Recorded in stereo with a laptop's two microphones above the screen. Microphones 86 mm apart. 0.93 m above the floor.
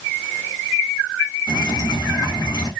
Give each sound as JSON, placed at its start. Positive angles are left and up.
{"t": 1.5, "sound": "dripping", "side_deg": 60, "distance_m": 1.0}